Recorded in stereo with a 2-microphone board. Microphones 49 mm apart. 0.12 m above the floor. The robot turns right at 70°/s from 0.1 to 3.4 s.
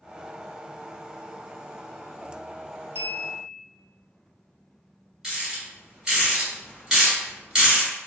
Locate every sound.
3.0 s a clink: 120° right, 1.7 m; by 3.6 s 85° right, 1.7 m
5.2 s a rattle: 15° right (ahead or behind), 1.9 m